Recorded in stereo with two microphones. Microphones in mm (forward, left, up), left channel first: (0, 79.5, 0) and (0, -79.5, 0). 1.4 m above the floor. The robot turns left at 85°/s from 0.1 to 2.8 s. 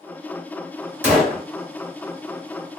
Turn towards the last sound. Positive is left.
turn(degrees=50)